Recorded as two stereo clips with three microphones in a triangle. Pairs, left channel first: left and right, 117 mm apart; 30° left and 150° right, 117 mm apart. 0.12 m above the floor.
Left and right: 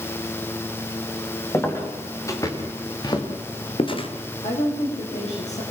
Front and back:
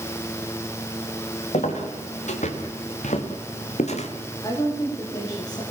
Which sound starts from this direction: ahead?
Footsteps, at 1.5 s.